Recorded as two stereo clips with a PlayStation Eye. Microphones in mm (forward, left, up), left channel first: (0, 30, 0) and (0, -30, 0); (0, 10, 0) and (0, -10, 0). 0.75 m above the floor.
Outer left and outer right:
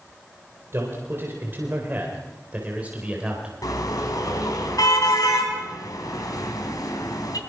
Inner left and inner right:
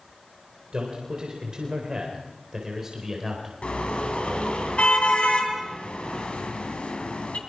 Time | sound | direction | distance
0.7 | a man speaking | 45° right (ahead or behind) | 4 m
3.6 | a car horn | 90° left | 3.5 m